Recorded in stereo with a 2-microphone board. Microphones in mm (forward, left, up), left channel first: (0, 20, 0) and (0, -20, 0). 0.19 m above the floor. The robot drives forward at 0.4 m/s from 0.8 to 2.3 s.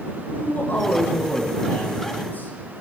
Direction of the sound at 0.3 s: 55° left (ahead or behind).